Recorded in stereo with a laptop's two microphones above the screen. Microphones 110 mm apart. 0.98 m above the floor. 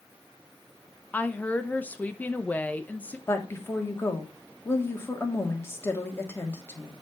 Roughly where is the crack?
No crack in this recording.